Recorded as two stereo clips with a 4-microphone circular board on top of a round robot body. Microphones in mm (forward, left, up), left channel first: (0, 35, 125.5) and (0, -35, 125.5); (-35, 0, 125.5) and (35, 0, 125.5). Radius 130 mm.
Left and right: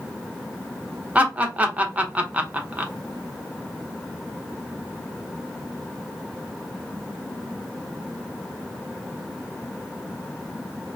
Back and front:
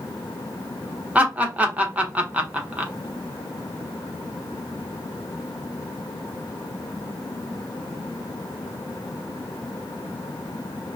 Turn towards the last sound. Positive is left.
turn(degrees=-45)